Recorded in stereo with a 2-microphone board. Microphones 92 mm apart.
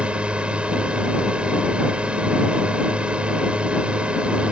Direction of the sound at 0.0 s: 15° right (ahead or behind).